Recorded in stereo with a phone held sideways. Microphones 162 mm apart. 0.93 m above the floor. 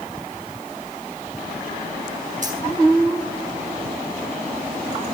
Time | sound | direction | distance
2.4 | keys jangling | 55° right (ahead or behind) | 6.5 m